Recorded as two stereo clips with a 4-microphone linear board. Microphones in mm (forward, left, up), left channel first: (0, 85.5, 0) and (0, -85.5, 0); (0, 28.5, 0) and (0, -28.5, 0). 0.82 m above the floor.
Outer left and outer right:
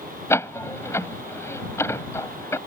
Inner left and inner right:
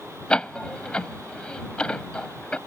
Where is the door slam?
15° left (ahead or behind).